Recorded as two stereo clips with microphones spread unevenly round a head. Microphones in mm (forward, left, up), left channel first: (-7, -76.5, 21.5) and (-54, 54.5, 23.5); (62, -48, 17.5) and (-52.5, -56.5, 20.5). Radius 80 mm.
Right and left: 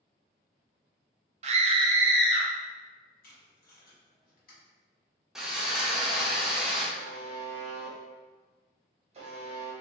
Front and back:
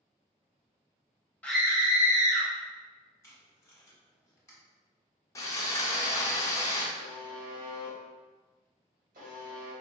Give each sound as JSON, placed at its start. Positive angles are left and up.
{"t": 1.4, "sound": "a scream", "azimuth_deg": 80, "distance_m": 0.6}
{"t": 3.2, "sound": "tape being pulled", "azimuth_deg": -60, "distance_m": 1.3}
{"t": 5.3, "sound": "sawing", "azimuth_deg": 25, "distance_m": 0.6}
{"t": 7.0, "sound": "a buzzer", "azimuth_deg": 150, "distance_m": 1.0}